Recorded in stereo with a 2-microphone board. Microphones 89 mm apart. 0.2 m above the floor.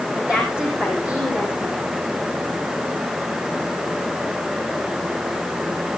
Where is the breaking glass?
No breaking glass in this recording.